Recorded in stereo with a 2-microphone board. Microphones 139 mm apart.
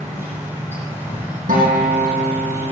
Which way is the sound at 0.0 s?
15° right (ahead or behind).